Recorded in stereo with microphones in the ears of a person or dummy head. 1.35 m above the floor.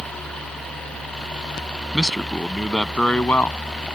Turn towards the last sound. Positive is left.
turn(degrees=10)  # may be behind; listen again after turning